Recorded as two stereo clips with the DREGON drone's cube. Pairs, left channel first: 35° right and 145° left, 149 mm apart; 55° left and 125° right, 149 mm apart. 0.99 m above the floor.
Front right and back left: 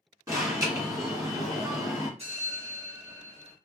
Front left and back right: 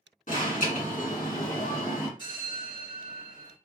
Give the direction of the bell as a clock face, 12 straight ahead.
8 o'clock.